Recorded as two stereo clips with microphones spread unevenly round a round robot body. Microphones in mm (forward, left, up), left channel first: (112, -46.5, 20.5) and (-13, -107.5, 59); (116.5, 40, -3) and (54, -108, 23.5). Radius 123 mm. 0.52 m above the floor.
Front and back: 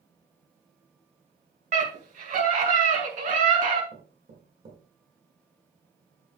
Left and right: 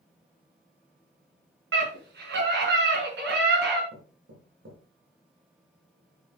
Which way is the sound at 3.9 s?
120° right.